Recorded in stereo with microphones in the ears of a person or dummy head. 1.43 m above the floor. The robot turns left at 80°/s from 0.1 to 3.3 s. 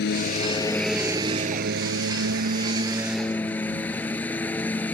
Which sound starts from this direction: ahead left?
A lawn mower, at 0.0 s.